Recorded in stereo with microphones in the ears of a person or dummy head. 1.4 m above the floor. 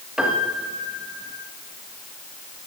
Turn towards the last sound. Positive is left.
turn(degrees=0)  # may be behind; listen again after turning